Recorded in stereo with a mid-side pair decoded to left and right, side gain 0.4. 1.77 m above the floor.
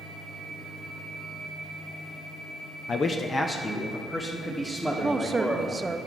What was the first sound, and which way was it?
A man speaking, 60° left.